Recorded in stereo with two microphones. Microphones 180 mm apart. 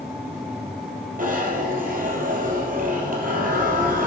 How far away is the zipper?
About 3 m.